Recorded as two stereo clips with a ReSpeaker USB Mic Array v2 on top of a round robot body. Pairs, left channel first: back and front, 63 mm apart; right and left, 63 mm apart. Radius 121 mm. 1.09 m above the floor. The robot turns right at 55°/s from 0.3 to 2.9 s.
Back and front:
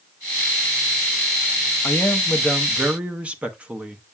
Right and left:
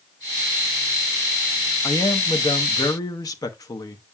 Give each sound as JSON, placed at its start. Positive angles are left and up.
{"t": 1.8, "sound": "a man speaking", "azimuth_deg": -130, "distance_m": 1.0}